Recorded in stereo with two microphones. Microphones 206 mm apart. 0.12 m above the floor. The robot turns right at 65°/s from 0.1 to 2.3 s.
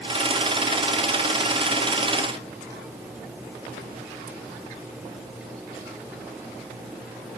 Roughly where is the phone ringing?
No phone ringing in this recording.